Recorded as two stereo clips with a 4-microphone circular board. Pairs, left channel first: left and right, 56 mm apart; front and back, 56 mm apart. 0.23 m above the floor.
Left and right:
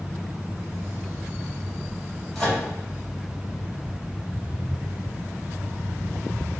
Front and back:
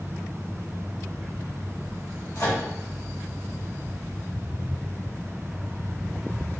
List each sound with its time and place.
2.4 s a microwave: 10° left, 1.7 m